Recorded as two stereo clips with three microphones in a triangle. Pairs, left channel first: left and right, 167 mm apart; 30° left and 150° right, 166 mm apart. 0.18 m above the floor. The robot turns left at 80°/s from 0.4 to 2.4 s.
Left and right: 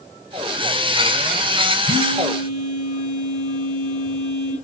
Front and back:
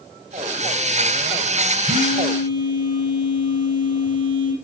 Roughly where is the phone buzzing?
Behind left.